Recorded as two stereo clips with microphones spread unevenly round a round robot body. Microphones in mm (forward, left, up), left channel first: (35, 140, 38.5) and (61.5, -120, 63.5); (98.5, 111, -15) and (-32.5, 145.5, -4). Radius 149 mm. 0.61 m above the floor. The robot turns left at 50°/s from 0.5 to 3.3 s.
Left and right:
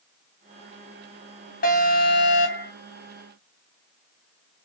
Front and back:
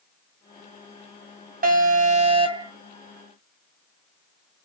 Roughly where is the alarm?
Behind left.